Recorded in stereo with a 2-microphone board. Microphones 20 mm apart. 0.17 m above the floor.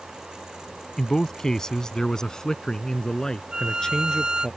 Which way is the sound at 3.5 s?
40° right (ahead or behind).